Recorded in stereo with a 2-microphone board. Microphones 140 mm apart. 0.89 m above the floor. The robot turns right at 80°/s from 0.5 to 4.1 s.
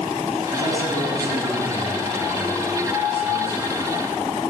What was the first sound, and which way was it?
A man speaking, 50° right.